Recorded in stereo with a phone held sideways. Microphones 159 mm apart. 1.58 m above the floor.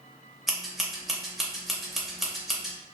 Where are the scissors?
Centre (ahead or behind), 0.7 m.